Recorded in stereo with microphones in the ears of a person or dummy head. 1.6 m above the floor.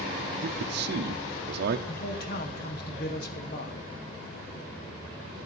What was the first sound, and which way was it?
A man speaking, 65° right (ahead or behind).